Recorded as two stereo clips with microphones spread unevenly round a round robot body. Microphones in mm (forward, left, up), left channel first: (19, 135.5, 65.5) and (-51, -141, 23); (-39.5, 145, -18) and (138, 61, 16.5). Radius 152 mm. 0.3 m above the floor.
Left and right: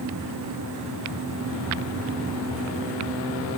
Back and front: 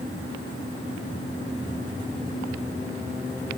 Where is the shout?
I don't hear a shout.